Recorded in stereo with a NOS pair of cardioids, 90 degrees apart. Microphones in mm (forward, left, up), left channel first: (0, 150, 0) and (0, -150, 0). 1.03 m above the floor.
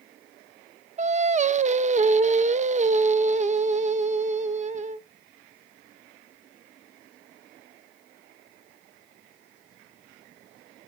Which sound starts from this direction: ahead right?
Singing, at 1.0 s.